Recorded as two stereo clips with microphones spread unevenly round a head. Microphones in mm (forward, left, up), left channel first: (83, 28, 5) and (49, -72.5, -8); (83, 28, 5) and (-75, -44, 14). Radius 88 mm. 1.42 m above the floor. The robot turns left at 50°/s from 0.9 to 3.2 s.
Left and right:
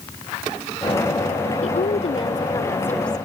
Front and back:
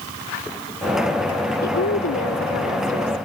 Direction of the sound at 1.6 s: 65° left.